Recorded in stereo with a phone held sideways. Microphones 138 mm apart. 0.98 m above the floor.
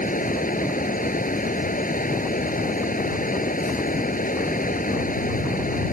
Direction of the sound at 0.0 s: 80° left.